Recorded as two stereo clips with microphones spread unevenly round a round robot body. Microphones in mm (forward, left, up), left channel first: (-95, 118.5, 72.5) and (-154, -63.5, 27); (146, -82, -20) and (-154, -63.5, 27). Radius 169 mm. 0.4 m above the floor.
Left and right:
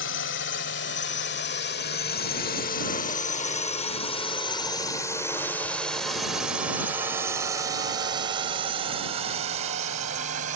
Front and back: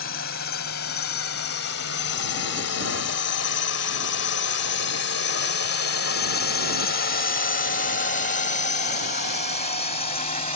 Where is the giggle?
I don't hear a giggle.